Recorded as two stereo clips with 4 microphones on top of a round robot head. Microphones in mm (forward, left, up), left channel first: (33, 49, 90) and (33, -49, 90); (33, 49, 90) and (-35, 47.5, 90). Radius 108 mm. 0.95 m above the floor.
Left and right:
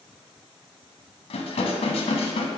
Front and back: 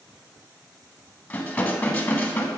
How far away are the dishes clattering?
About 0.9 m.